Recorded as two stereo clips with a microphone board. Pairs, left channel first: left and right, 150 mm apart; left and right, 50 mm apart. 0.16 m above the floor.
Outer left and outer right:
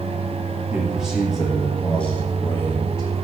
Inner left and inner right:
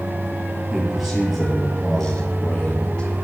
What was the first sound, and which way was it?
A man speaking, 10° right (ahead or behind).